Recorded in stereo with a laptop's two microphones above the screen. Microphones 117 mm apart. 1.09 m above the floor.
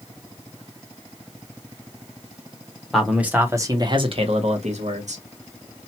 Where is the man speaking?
Centre (ahead or behind), 0.8 m; by 5.2 s 80° right, 1.0 m.